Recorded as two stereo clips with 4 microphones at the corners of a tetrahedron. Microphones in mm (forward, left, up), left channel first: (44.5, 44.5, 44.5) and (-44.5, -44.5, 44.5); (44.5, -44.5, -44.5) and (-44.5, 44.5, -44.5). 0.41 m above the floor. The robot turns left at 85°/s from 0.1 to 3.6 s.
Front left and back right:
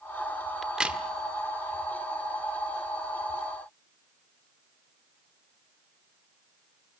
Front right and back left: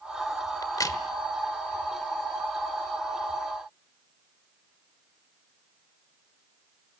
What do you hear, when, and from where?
0.6 s a crack: 45° right, 1.4 m; by 1.0 s 75° right, 1.4 m